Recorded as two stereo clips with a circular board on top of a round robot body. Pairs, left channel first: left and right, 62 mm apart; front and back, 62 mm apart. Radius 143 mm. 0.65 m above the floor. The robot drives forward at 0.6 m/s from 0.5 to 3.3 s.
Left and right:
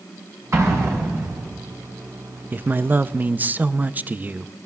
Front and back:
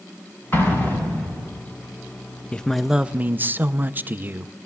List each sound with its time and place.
0.5 s an explosion: 50° right, 4.5 m; by 1.5 s 55° right, 4 m
2.5 s a man speaking: 55° right, 0.7 m; by 4.5 s 135° right, 0.7 m